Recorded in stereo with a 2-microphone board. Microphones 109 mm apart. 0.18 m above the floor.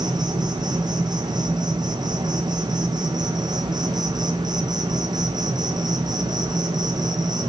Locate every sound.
0.0 s an insect: 40° right (ahead or behind), 1.0 m